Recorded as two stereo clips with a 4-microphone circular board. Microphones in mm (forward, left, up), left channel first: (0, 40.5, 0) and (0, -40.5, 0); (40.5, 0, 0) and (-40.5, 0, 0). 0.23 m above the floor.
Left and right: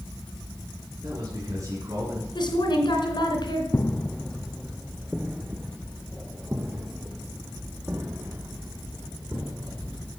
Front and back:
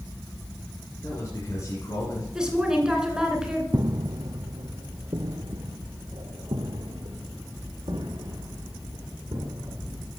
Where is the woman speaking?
100° left, 2.5 m.